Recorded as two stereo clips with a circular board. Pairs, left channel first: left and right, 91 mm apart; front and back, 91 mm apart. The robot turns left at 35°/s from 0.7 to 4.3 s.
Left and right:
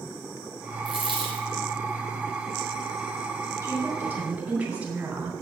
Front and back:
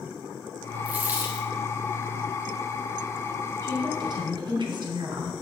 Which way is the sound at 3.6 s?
140° right.